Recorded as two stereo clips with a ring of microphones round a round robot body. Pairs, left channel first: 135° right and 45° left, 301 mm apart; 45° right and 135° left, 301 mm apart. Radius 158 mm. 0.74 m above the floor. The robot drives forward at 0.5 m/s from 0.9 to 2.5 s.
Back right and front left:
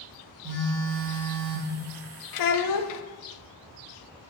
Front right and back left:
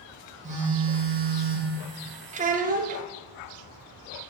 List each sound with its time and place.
0.4 s a phone buzzing: 70° left, 2.0 m; by 1.8 s 80° left, 1.8 m
2.3 s a child speaking: 155° right, 0.7 m; by 3.0 s 160° right, 0.8 m